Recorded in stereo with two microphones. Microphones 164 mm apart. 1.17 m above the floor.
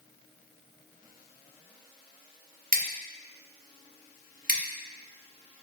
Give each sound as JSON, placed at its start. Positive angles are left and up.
{"t": 2.7, "sound": "scissors", "side_deg": -60, "distance_m": 0.9}